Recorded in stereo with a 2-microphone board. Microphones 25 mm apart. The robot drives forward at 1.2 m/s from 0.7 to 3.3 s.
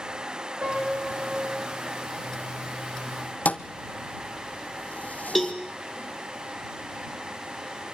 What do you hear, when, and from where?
0.6 s a piano: 55° right (ahead or behind), 8.5 m; by 1.6 s 60° right (ahead or behind), 8 m
3.5 s a thud: 70° left (ahead or behind), 0.9 m
5.3 s a cowbell: centre (ahead or behind), 1.8 m